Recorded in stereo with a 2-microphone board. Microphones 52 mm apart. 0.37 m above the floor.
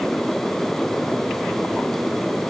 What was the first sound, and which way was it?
Only background noise.